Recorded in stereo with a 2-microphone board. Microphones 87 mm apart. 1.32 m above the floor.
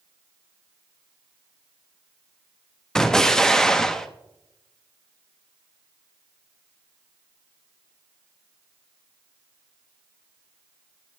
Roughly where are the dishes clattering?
No dishes clattering in this recording.